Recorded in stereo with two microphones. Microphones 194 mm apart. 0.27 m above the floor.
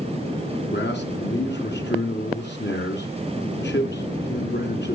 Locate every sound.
0.7 s a man speaking: 65° left (ahead or behind), 3 m